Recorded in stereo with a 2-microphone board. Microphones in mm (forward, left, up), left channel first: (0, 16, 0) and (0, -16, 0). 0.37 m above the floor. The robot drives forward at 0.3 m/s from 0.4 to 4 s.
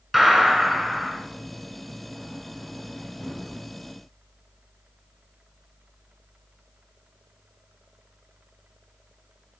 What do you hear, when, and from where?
0.1 s a gunshot: centre (ahead or behind), 1.5 m